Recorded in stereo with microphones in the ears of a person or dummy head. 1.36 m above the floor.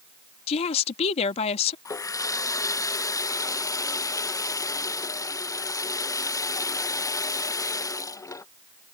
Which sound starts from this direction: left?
A woman speaking, at 0.5 s.